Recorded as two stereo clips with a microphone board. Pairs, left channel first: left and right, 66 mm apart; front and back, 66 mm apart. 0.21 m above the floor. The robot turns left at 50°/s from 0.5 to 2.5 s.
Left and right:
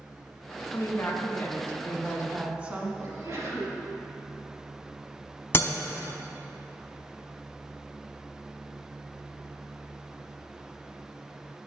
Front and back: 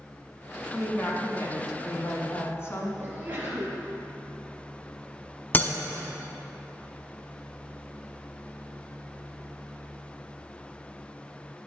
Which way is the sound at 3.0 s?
120° right.